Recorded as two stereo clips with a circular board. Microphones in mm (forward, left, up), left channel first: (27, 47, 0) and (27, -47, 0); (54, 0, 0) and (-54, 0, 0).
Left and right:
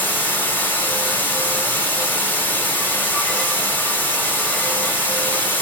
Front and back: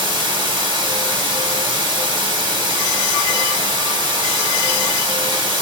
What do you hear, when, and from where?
0.0 s running water: 150° left, 1.2 m